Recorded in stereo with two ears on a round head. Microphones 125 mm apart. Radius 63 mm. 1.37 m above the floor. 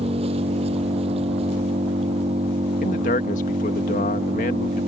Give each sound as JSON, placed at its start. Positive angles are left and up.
{"t": 0.0, "sound": "an engine running", "side_deg": -45}
{"t": 2.8, "sound": "a man speaking", "side_deg": 60}